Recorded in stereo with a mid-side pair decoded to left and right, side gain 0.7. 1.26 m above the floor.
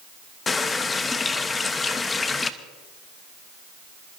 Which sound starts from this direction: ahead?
A running tap, at 0.5 s.